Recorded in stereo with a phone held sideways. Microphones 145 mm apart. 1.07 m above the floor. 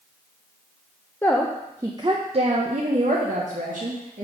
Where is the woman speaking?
15° left (ahead or behind), 0.5 m; by 4.2 s 75° right (ahead or behind), 1.5 m.